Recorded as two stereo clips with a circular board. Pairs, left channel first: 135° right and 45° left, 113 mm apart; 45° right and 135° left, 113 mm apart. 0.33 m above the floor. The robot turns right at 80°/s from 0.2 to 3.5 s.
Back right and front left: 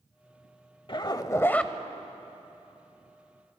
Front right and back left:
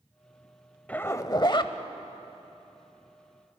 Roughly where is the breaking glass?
No breaking glass in this recording.